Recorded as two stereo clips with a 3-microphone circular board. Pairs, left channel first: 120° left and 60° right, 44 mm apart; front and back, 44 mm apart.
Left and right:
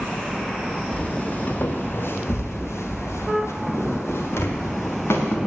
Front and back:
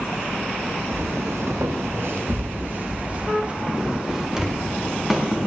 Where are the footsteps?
175° right, 2.5 m; by 5.4 s 90° left, 4.5 m.